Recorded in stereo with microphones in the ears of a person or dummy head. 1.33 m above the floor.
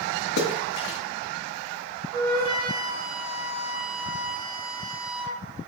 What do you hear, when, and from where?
0.4 s a splash: 60° left (ahead or behind), 1.6 m
2.1 s a flute: 65° right (ahead or behind), 4 m